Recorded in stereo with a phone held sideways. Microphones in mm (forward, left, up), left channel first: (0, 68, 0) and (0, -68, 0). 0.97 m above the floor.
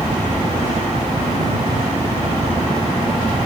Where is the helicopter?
45° right (ahead or behind); by 3.5 s 50° right (ahead or behind).